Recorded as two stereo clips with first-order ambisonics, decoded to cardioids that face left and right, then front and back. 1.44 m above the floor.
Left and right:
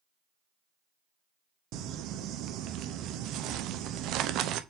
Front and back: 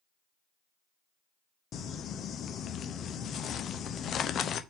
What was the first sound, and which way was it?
Crumpling, 55° right.